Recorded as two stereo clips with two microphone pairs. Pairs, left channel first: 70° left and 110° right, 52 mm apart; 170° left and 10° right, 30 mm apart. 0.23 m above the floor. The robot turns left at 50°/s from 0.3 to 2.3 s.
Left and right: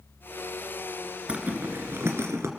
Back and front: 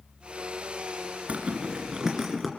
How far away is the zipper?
About 2.5 m.